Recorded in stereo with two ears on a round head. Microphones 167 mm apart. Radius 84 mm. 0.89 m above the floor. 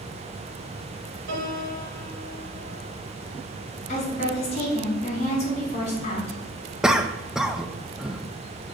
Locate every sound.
1.3 s a piano: 65° right (ahead or behind), 1.9 m
3.9 s a woman speaking: 40° left (ahead or behind), 3 m
6.8 s a cough: 5° right (ahead or behind), 0.5 m